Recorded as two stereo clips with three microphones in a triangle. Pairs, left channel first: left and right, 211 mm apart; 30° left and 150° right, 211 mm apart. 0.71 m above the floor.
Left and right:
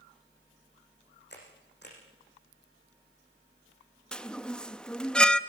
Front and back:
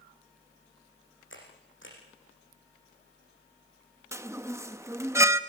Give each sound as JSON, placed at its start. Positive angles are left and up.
{"t": 1.3, "sound": "a camera shutter", "azimuth_deg": 55, "distance_m": 7.0}
{"t": 4.1, "sound": "a chime", "azimuth_deg": 165, "distance_m": 0.7}